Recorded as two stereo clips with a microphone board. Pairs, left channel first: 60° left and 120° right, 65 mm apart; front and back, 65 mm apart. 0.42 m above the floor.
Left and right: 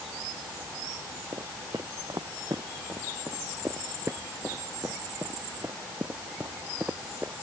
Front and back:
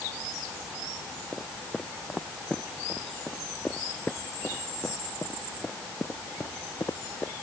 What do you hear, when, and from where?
1.3 s footsteps: 85° right; by 7.3 s 50° right